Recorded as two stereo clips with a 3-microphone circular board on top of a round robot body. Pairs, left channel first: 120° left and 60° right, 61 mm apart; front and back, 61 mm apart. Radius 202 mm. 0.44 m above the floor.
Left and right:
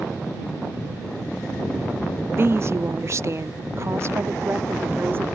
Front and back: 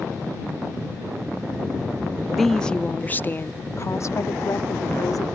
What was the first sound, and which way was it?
A woman speaking, 90° right.